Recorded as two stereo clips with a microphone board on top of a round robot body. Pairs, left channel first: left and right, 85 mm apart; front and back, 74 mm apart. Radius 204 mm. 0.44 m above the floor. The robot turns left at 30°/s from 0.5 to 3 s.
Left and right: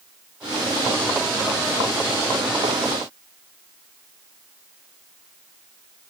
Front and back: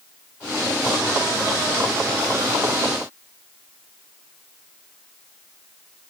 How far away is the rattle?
I don't hear a rattle.